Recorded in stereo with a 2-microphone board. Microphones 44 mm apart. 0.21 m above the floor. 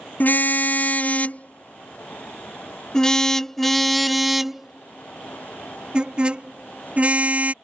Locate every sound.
0.2 s a car horn: 45° left (ahead or behind); by 7.5 s 35° right (ahead or behind)